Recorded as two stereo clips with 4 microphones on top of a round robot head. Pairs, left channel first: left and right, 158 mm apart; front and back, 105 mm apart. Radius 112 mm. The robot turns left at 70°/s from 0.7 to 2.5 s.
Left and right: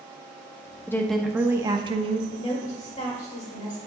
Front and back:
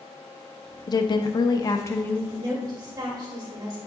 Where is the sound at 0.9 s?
20° left, 0.7 m; by 2.2 s 75° right, 0.7 m.